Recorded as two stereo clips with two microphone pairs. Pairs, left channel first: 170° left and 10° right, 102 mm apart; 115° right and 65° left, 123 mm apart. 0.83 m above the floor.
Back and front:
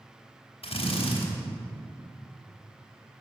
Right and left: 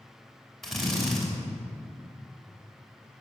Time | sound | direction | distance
0.6 | a drill | 155° left | 3 m